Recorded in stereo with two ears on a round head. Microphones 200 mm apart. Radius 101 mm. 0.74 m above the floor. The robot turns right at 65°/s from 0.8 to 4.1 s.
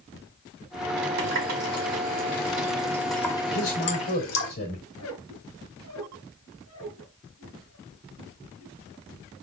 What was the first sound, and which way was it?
A running tap, 55° right (ahead or behind).